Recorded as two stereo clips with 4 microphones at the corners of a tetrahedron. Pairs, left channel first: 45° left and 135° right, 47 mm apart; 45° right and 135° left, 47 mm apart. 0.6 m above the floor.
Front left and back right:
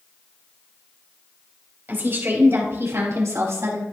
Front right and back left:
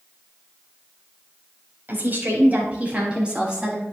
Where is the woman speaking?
Straight behind, 3.5 m; by 3.8 s 150° right, 5 m.